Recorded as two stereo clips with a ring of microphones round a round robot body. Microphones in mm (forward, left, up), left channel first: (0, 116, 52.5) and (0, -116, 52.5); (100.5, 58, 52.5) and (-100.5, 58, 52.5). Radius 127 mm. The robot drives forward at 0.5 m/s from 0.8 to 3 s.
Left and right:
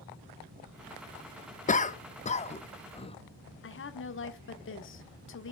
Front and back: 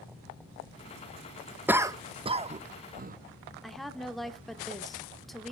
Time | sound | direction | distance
1.7 | a cough | 105° left | 1.0 m
3.6 | a woman speaking | 90° left | 1.5 m